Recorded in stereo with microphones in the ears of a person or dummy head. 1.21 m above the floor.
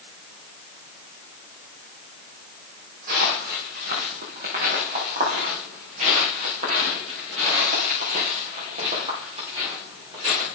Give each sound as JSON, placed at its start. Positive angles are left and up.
{"t": 3.1, "sound": "footsteps", "side_deg": -45, "distance_m": 4.5}